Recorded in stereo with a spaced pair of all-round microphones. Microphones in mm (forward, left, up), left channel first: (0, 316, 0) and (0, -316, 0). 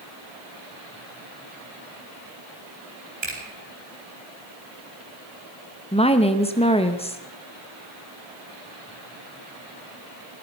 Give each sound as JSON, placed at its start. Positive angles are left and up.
{"t": 3.2, "sound": "a finger snap", "side_deg": -70, "distance_m": 4.5}
{"t": 5.9, "sound": "a woman speaking", "side_deg": 10, "distance_m": 0.9}